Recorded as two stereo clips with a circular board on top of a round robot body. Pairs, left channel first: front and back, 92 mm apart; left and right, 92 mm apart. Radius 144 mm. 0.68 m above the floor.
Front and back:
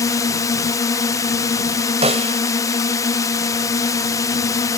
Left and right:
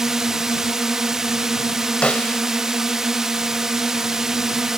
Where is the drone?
10° right.